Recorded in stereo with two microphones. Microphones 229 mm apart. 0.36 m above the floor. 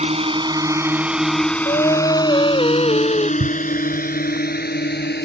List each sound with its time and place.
0.0 s a drone: 30° right (ahead or behind); by 5.2 s 45° left (ahead or behind)
1.6 s singing: 25° left (ahead or behind)
3.4 s a thud: 65° right (ahead or behind)